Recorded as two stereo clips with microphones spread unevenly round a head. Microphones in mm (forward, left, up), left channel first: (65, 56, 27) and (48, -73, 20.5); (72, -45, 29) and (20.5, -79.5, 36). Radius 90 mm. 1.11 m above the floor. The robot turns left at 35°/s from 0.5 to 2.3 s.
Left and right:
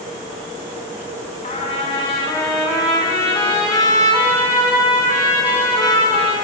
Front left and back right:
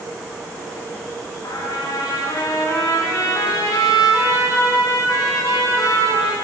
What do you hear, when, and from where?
1.4 s a trumpet: 45° left, 3 m; by 6.3 s 15° left, 3 m